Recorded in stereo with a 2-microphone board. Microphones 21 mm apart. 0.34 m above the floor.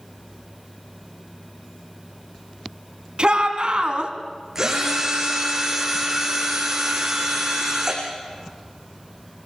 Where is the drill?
20° right (ahead or behind), 7 m.